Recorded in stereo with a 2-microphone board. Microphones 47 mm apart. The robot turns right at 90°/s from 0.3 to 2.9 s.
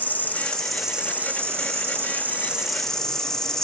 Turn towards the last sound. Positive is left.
turn(degrees=15)